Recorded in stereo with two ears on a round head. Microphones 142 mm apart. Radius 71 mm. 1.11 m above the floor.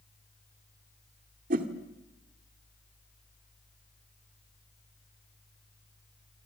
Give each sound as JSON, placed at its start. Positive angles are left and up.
{"t": 1.5, "sound": "a whoosh", "side_deg": -55, "distance_m": 2.0}